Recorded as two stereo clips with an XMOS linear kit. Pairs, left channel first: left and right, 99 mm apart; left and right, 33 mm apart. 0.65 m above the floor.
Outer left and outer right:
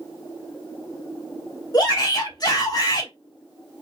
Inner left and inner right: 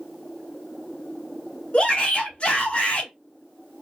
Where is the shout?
40° left (ahead or behind), 1.2 m.